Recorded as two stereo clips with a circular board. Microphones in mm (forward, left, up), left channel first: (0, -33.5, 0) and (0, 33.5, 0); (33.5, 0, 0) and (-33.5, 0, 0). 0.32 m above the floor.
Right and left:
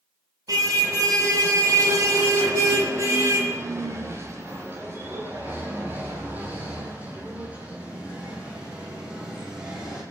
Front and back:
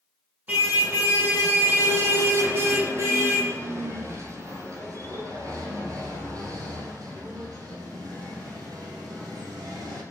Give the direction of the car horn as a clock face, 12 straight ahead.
8 o'clock.